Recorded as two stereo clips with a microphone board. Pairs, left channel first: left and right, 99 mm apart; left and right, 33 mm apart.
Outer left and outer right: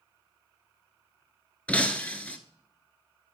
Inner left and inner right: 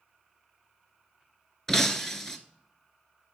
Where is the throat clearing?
No throat clearing in this recording.